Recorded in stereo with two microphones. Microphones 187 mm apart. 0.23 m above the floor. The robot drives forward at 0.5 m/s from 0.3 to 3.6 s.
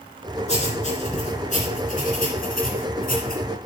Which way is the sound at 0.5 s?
35° left (ahead or behind).